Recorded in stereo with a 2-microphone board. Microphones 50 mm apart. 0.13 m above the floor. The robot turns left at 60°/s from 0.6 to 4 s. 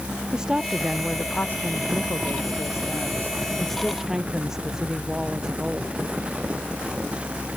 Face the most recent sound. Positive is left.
turn(degrees=-10)